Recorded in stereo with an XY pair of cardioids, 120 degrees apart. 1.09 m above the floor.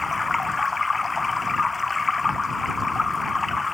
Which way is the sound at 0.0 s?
20° left.